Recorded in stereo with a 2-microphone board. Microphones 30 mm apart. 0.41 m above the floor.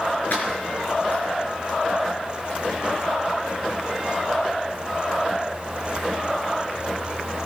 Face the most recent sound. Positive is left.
turn(degrees=70)  # may be behind; listen again after turning